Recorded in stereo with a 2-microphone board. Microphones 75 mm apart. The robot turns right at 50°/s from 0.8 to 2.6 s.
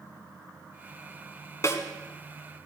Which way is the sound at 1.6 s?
45° left (ahead or behind).